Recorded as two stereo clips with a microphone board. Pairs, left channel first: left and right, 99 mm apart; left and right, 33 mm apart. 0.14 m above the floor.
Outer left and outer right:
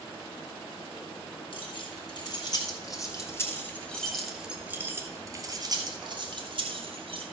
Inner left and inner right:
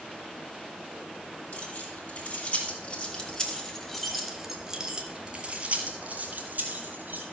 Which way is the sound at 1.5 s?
55° left (ahead or behind).